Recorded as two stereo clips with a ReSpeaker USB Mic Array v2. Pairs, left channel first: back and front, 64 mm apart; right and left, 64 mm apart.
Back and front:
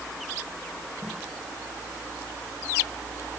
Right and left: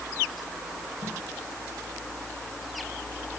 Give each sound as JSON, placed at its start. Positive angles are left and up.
{"t": 1.0, "sound": "footsteps", "azimuth_deg": 45, "distance_m": 7.5}